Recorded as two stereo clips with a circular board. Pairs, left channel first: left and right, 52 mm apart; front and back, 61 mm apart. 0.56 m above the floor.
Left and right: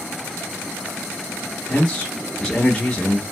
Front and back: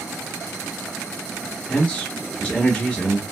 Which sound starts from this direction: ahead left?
A man speaking, at 1.7 s.